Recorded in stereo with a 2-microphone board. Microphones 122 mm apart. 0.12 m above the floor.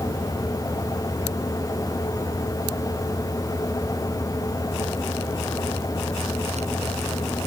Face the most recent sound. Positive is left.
No sound to turn to.